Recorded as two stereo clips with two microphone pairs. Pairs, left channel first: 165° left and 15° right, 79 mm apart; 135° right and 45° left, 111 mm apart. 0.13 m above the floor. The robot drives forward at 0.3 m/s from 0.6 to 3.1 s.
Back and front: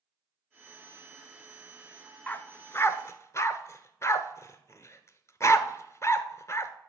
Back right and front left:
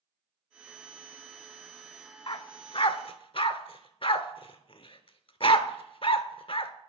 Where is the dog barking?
130° right, 0.5 m; by 6.7 s 150° right, 0.7 m.